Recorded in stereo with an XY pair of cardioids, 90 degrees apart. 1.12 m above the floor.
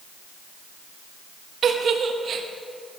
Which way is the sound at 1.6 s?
60° right.